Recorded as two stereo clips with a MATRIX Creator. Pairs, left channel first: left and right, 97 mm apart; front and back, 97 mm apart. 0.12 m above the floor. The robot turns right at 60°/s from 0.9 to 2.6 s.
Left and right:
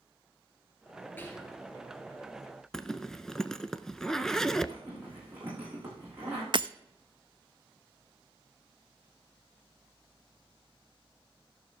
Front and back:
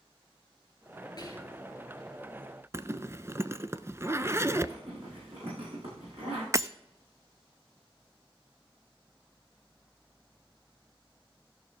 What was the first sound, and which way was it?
Whispering, 25° left.